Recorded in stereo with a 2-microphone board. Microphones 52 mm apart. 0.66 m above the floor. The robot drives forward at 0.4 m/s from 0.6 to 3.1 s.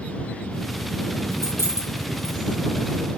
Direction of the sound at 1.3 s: 75° right (ahead or behind).